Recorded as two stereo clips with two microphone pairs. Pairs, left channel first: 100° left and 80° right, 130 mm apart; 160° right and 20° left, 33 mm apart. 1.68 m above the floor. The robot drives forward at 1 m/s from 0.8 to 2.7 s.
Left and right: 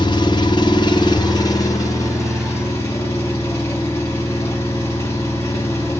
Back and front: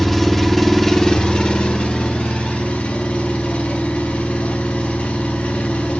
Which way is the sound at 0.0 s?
125° left.